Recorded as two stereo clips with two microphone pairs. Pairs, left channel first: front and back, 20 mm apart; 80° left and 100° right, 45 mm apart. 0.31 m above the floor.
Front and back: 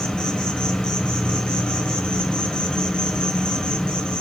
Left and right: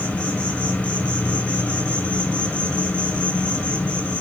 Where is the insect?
30° left, 2 m.